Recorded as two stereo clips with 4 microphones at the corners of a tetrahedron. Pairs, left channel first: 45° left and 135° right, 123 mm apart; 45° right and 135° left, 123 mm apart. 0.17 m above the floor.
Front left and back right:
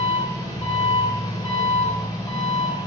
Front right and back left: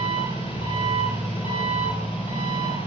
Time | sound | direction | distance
0.0 | an engine running | 10° right | 2.5 m